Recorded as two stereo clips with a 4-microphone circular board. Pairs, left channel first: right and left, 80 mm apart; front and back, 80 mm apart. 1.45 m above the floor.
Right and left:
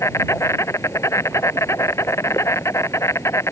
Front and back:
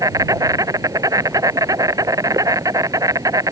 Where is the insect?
140° right.